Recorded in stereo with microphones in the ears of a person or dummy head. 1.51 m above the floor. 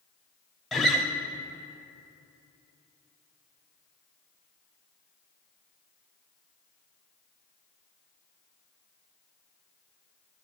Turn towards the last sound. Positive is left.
turn(degrees=0)  # may be behind; listen again after turning